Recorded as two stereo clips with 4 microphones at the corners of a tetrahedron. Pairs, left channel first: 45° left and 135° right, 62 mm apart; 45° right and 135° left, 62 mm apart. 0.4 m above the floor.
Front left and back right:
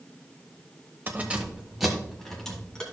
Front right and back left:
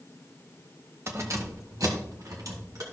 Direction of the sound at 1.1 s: 170° left.